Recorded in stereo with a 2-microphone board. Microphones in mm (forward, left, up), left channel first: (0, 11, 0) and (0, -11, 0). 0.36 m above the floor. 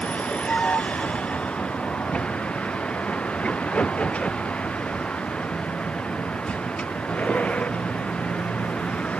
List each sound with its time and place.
0.0 s a vehicle: 75° left (ahead or behind)